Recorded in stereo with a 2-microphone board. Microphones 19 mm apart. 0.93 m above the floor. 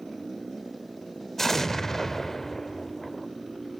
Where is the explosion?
20° left (ahead or behind), 0.6 m.